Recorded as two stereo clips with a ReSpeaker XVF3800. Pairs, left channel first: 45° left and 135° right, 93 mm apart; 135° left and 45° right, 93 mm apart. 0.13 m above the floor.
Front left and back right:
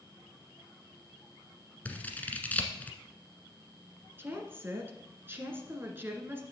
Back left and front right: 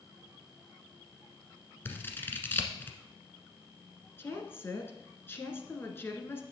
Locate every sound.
1.9 s scissors: 95° left, 1.3 m
4.2 s a woman speaking: 175° left, 1.6 m